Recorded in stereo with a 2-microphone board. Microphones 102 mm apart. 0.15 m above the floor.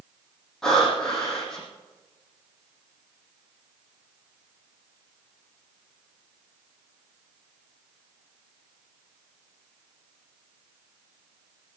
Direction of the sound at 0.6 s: 5° left (ahead or behind).